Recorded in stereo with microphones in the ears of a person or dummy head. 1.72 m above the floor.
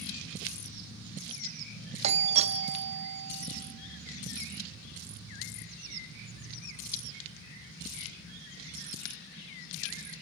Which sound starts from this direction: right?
A doorbell, at 2.0 s.